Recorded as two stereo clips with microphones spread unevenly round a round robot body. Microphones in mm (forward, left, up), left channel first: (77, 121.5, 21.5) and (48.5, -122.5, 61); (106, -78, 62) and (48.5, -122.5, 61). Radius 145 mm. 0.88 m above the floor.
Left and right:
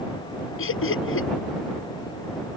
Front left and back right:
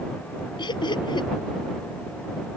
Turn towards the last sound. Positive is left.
turn(degrees=50)